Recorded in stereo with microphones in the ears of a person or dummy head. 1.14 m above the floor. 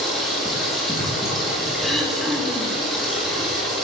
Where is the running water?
5° left (ahead or behind), 1.5 m.